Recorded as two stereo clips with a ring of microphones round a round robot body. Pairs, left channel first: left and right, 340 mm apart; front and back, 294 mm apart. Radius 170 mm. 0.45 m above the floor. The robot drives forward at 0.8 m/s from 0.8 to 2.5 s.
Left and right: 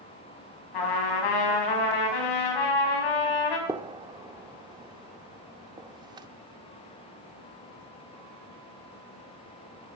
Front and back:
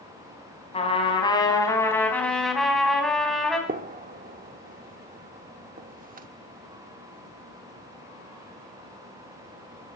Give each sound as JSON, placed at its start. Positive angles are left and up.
{"t": 0.7, "sound": "a trumpet", "azimuth_deg": 70, "distance_m": 4.5}
{"t": 3.7, "sound": "a gunshot", "azimuth_deg": -155, "distance_m": 0.8}